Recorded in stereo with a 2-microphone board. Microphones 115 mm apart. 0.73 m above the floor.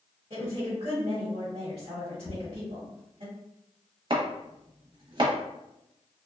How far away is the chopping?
About 0.7 m.